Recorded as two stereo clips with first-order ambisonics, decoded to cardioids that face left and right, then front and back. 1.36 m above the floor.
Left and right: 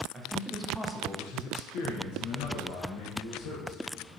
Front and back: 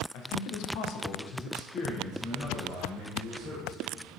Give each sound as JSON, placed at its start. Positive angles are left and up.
{"t": 0.1, "sound": "a man speaking", "azimuth_deg": -25, "distance_m": 0.6}